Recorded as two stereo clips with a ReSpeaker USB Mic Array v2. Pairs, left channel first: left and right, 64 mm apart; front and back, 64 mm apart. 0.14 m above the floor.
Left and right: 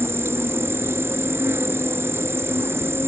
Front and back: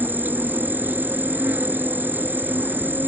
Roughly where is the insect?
Behind right.